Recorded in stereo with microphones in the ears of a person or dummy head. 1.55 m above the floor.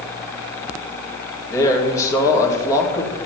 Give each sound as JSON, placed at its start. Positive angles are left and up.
{"t": 1.5, "sound": "a man speaking", "side_deg": 20, "distance_m": 2.5}